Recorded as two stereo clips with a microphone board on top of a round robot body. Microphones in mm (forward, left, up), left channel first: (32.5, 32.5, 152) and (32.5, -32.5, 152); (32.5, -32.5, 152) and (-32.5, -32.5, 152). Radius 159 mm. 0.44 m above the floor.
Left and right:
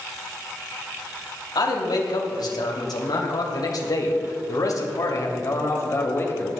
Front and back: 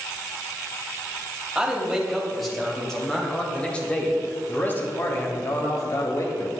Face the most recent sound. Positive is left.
turn(degrees=35)